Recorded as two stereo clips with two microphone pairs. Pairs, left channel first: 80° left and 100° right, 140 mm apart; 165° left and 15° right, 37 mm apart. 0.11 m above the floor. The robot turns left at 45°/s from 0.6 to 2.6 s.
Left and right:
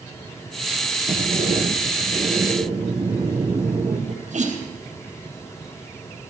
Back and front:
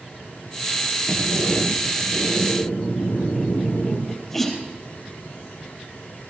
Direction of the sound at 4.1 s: 115° right.